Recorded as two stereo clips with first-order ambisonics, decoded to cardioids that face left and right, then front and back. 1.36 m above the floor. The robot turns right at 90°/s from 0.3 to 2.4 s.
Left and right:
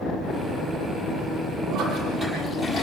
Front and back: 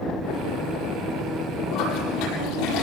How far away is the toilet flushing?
About 9 m.